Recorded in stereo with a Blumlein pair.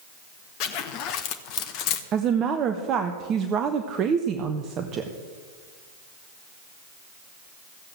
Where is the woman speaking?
30° right, 0.9 m.